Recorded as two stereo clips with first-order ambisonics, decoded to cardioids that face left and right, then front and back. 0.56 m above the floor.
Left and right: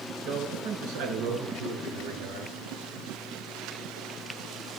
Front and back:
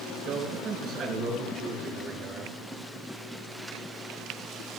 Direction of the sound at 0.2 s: 110° right.